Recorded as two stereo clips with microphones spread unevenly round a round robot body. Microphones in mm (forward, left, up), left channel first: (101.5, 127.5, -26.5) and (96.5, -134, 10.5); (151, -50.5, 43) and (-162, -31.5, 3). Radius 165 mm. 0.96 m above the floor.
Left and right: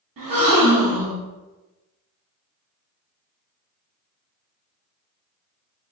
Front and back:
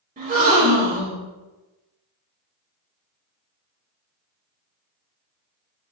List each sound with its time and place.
0.2 s a gasp: 120° right, 1.3 m